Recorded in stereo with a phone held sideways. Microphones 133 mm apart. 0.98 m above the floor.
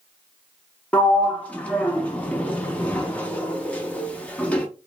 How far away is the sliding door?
About 0.5 m.